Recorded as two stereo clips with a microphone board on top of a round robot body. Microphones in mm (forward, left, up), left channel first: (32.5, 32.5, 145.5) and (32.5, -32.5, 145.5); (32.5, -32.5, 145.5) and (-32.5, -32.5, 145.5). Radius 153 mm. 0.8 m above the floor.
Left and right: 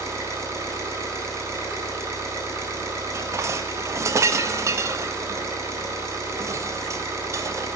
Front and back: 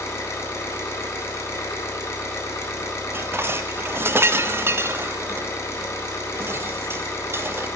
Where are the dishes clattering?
130° right, 0.9 m.